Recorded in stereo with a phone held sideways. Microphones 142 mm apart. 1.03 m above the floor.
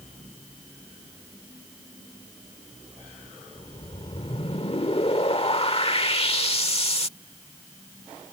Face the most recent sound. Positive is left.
turn(degrees=45)  # may be behind; listen again after turning